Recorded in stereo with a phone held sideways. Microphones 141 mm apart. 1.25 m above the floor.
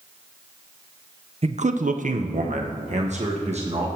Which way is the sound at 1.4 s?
45° right (ahead or behind).